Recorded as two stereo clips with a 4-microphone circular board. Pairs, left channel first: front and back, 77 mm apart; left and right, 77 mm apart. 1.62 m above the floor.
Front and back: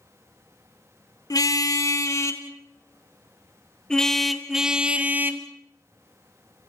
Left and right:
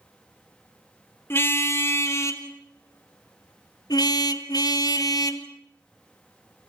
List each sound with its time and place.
1.3 s a car horn: 35° left, 2.5 m; by 5.5 s 120° left, 1.9 m